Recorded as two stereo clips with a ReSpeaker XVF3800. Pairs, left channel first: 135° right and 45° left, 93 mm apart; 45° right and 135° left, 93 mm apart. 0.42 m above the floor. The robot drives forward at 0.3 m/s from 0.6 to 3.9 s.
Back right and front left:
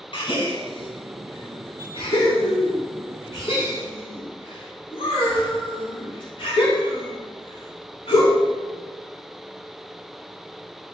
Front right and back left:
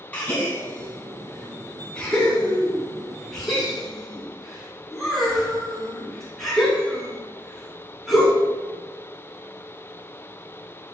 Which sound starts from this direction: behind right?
A gasp, at 0.1 s.